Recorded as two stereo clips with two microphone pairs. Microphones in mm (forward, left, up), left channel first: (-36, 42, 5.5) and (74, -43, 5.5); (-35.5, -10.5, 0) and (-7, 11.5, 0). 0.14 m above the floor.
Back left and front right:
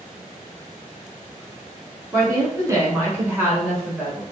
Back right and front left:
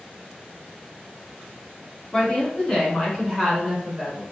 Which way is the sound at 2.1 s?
90° right.